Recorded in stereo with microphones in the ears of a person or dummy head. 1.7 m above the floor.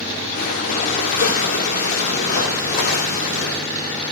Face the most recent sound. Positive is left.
turn(degrees=40)  # may be behind; listen again after turning